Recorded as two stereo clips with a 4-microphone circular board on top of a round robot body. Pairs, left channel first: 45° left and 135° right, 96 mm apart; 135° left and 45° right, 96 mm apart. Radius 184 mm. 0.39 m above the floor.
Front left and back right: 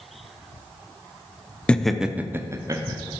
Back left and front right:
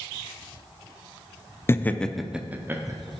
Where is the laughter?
110° left, 0.8 m; by 3.1 s 95° right, 1.1 m.